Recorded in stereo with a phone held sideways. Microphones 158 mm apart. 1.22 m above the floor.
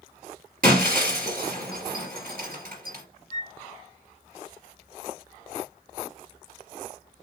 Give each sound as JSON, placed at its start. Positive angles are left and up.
{"t": 0.6, "sound": "breaking glass", "side_deg": -65, "distance_m": 2.5}
{"t": 3.3, "sound": "a flute", "side_deg": -80, "distance_m": 1.8}